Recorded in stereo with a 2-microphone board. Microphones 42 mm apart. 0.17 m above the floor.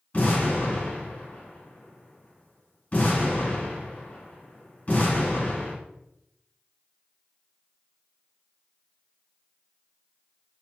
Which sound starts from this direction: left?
An explosion, at 0.1 s.